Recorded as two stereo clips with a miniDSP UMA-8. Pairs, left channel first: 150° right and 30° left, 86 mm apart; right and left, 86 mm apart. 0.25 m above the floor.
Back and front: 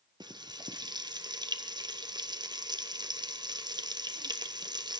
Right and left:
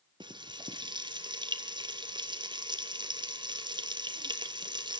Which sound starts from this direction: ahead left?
Frying, at 0.2 s.